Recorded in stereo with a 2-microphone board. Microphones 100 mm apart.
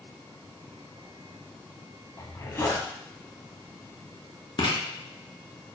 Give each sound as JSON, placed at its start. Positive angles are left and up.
{"t": 2.2, "sound": "a zipper", "side_deg": 35, "distance_m": 0.6}
{"t": 4.6, "sound": "writing", "side_deg": 55, "distance_m": 1.0}